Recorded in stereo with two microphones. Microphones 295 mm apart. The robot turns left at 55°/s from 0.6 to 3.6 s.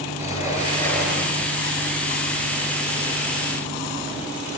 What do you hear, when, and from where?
0.2 s a sliding door: 25° left, 7.5 m; by 1.5 s 30° right, 7.5 m